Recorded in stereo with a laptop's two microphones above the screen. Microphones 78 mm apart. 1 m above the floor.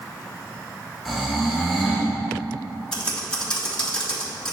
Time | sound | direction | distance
1.1 | snoring | 5° right (ahead or behind) | 1.5 m
2.9 | typing on a keyboard | 10° left (ahead or behind) | 1.9 m